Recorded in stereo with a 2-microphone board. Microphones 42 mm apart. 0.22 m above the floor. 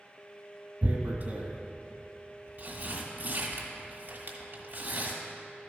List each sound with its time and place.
0.8 s tearing paper: 50° right (ahead or behind), 1.6 m